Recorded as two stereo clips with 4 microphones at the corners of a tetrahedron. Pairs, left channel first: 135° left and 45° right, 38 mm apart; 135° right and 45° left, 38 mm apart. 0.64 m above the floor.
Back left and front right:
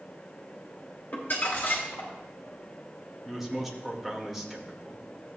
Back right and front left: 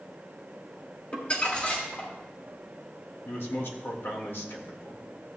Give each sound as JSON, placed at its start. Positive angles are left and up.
{"t": 1.1, "sound": "crumpling", "azimuth_deg": 175, "distance_m": 2.5}
{"t": 3.2, "sound": "a man speaking", "azimuth_deg": -135, "distance_m": 1.8}